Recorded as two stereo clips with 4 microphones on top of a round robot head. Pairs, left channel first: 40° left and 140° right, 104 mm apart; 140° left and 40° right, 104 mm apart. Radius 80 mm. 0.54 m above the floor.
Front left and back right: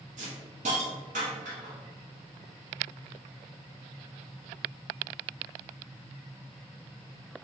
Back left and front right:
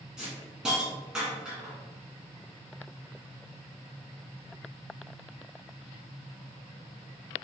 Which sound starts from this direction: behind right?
A hiss, at 0.2 s.